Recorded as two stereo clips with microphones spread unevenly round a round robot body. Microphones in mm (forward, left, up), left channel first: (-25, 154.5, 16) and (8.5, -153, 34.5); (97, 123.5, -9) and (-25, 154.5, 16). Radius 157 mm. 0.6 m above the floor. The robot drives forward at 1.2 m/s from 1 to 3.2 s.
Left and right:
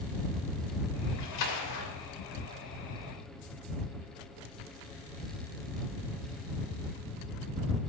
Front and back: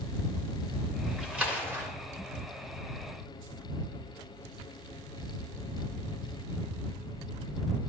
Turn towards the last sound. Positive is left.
turn(degrees=125)